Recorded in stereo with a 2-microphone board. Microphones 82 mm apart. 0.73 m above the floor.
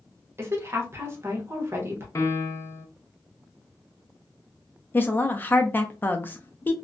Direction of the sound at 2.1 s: 40° left (ahead or behind).